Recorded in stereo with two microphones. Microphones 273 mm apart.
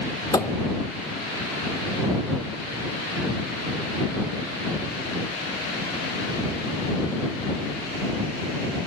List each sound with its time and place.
0.3 s a thud: 15° left (ahead or behind)